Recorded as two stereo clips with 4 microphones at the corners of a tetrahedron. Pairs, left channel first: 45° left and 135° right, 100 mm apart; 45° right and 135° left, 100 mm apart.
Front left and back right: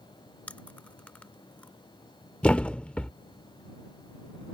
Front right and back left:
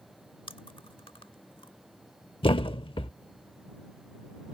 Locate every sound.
0.5 s chewing: 30° right
2.4 s a thud: 35° right